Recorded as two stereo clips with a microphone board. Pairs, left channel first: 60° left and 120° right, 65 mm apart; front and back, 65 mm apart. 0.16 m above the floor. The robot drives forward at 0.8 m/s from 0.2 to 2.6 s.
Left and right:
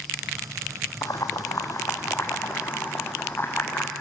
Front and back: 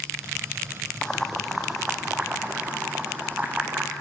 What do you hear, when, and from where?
1.0 s boiling: 80° left, 2 m; by 3.9 s 115° left, 2 m